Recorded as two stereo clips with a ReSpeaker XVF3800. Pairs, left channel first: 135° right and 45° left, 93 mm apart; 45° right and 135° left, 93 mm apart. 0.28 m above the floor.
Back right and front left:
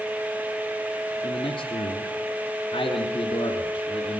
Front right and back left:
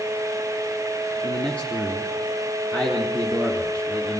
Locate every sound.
1.2 s a man speaking: 120° right, 4 m